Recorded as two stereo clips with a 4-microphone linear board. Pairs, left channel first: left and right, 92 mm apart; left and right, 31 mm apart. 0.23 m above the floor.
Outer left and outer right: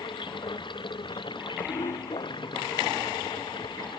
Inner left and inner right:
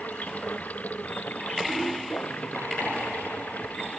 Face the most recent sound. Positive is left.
turn(degrees=60)  # may be behind; listen again after turning